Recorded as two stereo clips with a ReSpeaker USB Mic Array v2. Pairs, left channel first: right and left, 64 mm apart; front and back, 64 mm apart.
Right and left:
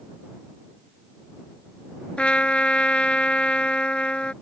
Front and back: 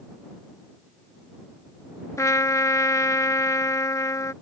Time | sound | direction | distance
2.2 | a trumpet | 20° right | ?